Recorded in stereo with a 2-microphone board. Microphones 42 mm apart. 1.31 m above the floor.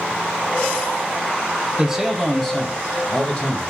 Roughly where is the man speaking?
Centre.